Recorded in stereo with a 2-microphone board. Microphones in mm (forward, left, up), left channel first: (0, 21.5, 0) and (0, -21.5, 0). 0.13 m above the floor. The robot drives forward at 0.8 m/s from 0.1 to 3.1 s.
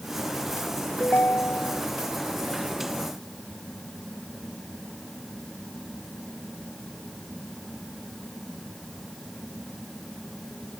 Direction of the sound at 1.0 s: 50° left (ahead or behind).